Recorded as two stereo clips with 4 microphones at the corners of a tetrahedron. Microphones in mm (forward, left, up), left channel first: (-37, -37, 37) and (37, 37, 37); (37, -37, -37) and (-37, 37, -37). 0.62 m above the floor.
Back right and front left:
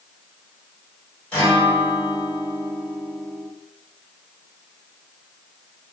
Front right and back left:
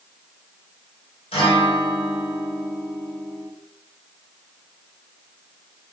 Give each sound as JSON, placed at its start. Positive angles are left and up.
{"t": 1.3, "sound": "a guitar", "azimuth_deg": -55, "distance_m": 1.9}